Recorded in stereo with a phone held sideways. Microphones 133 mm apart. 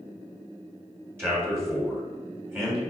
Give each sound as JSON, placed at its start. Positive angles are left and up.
{"t": 1.2, "sound": "a man speaking", "side_deg": -15, "distance_m": 1.1}